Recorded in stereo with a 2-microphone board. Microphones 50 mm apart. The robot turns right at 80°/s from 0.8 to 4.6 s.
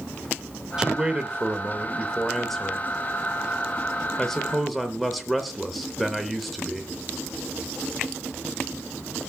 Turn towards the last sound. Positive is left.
turn(degrees=0)  # may be behind; listen again after turning